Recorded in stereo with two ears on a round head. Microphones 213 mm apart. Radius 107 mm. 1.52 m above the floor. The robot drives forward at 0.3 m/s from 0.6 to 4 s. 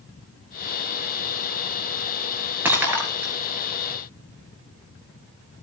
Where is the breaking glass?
10° right (ahead or behind), 6 m.